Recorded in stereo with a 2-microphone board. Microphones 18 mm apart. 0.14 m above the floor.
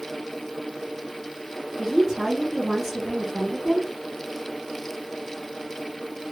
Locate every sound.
1.8 s a woman speaking: 20° right (ahead or behind), 1.3 m